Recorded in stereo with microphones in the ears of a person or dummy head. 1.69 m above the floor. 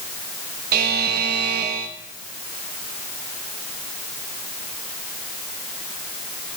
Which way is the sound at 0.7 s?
55° right (ahead or behind).